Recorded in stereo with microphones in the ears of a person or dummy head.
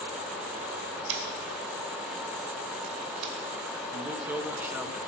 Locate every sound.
1.1 s scissors: 70° right (ahead or behind), 2.5 m
3.9 s a man speaking: 10° right (ahead or behind), 1.4 m